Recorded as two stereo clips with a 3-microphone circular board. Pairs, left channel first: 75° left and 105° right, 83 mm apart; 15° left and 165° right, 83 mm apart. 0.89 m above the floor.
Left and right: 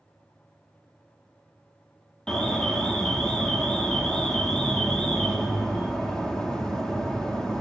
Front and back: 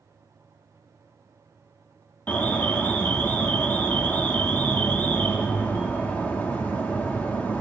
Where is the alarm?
10° left, 1.6 m.